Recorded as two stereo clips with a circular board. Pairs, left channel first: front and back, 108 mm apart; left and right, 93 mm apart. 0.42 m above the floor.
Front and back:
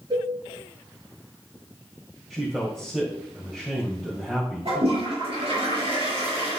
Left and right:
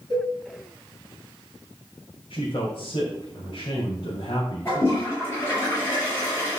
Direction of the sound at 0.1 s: 130° left.